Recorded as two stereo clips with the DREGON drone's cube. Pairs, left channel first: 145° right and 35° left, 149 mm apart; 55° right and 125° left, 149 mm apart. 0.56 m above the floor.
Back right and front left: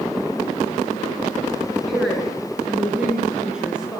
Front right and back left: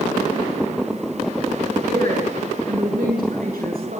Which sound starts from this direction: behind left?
A woman speaking, at 1.9 s.